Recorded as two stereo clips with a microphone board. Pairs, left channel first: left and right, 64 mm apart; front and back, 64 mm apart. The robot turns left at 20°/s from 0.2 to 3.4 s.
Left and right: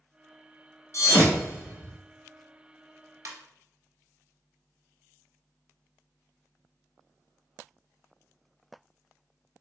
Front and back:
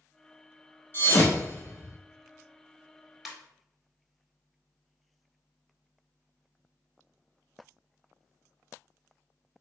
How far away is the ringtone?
About 0.9 m.